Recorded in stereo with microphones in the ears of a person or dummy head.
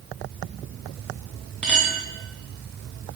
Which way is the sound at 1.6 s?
5° left (ahead or behind).